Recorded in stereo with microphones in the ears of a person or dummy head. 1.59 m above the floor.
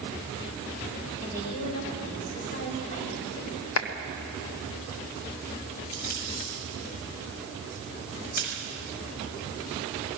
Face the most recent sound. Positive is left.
turn(degrees=50)  # may be behind; listen again after turning